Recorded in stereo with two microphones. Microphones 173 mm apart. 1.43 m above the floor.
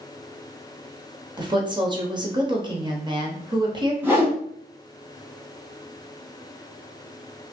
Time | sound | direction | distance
1.4 | a woman speaking | 25° right (ahead or behind) | 0.8 m
4.0 | a whoosh | 10° right (ahead or behind) | 1.4 m